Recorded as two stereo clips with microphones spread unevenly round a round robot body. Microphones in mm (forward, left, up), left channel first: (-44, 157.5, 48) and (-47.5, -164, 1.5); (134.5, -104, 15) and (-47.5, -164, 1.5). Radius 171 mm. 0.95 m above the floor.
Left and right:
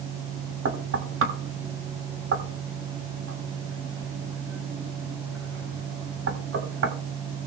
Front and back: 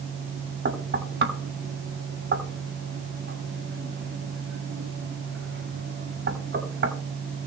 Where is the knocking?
140° right, 3 m.